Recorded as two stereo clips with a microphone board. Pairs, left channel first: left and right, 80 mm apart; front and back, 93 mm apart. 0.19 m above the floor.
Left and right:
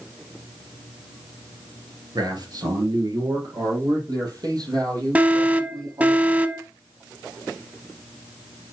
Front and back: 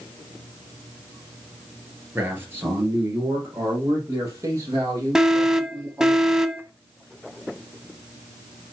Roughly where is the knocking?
No knocking in this recording.